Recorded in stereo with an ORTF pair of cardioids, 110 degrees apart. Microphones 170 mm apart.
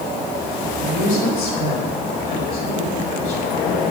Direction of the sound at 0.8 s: 60° left.